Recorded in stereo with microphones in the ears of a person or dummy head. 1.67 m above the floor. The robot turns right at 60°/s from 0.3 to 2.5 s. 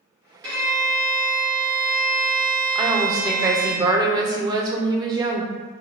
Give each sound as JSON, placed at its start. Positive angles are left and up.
{"t": 0.4, "sound": "a violin", "azimuth_deg": -20, "distance_m": 1.4}
{"t": 2.8, "sound": "a woman speaking", "side_deg": -20, "distance_m": 0.7}